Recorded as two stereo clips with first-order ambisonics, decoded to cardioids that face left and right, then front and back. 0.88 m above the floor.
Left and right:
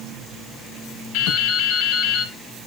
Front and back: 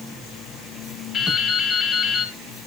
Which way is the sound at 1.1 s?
75° left.